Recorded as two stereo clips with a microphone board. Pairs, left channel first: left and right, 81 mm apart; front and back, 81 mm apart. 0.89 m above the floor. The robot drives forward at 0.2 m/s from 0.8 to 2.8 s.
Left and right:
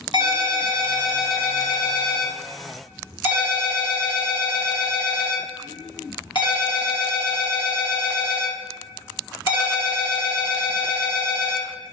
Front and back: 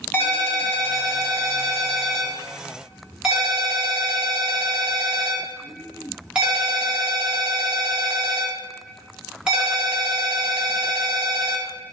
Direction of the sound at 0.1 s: 70° left.